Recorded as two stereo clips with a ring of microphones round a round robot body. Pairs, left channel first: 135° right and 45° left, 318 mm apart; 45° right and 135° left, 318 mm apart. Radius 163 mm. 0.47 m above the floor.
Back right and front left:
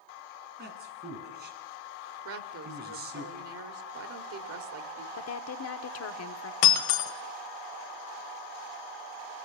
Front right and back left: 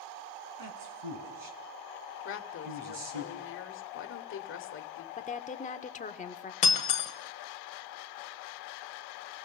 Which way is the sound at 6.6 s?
115° right.